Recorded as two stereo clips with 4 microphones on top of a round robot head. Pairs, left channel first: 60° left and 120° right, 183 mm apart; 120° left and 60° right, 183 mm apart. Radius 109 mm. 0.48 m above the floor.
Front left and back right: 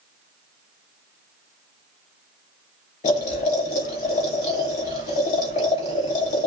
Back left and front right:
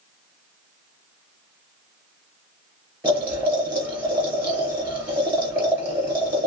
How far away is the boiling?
About 2.5 m.